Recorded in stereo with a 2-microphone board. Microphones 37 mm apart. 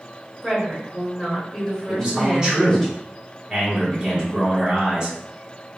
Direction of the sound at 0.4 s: 5° left (ahead or behind).